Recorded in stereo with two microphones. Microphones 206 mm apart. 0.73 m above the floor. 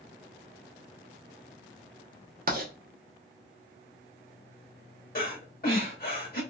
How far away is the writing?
About 0.8 m.